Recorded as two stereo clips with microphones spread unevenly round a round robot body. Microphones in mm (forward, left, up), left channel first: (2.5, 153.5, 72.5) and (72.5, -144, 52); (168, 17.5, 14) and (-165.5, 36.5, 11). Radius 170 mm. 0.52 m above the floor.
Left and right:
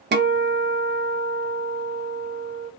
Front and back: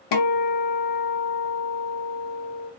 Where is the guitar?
25° right, 0.6 m.